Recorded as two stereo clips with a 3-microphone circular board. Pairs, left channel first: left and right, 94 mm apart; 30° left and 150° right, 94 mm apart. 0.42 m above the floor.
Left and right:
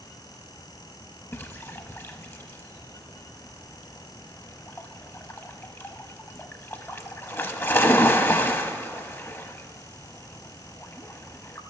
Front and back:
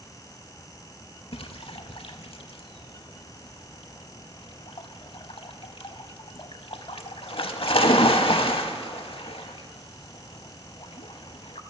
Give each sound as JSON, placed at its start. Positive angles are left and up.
{"t": 1.3, "sound": "a splash", "azimuth_deg": 25, "distance_m": 0.5}